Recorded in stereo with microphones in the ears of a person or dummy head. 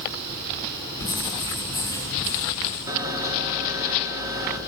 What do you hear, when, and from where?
1.0 s writing: 20° left (ahead or behind), 6.5 m
2.9 s a camera shutter: 15° right (ahead or behind), 1.4 m